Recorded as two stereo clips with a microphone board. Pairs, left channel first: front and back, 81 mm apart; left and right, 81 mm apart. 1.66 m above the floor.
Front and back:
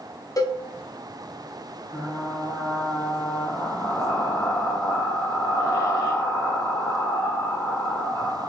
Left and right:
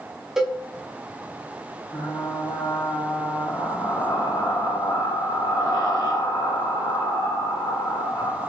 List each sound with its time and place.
0.4 s a cowbell: 5° right, 0.6 m
1.9 s frying: 55° left, 1.5 m